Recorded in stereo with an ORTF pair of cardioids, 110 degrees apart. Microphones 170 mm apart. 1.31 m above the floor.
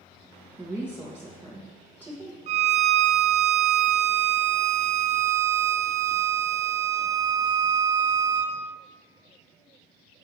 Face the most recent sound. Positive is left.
turn(degrees=-45)